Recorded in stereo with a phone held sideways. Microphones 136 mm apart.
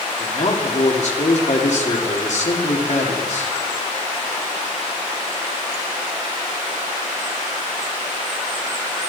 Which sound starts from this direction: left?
A man speaking, at 0.2 s.